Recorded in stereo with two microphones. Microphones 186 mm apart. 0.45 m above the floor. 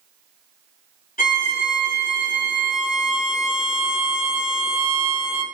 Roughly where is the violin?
Left.